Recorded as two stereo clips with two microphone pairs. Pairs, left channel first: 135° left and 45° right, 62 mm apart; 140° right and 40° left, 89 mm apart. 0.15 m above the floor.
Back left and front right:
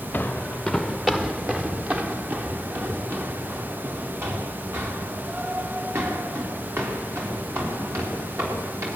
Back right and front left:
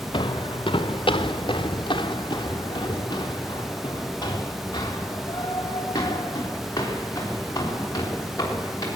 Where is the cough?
I don't hear a cough.